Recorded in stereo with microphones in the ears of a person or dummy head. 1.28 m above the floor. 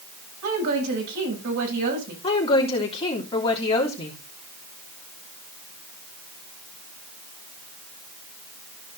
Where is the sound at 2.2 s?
20° left (ahead or behind), 3 m.